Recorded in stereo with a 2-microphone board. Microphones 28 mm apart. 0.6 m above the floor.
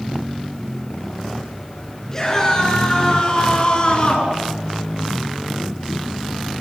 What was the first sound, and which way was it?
A scream, 20° left (ahead or behind).